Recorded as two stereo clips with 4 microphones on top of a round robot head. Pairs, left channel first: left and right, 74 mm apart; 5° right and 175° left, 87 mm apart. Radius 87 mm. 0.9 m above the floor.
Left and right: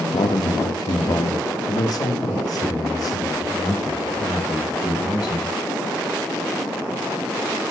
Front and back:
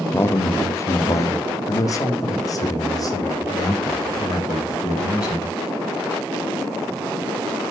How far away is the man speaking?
About 0.9 m.